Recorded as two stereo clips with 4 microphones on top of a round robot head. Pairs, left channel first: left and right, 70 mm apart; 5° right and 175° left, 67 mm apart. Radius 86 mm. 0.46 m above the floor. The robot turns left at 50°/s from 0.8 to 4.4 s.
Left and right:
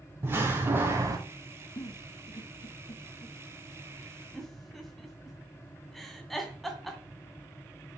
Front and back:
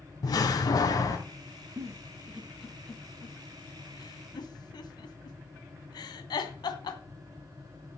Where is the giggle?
135° left, 2.0 m; by 7.0 s straight ahead, 2.0 m.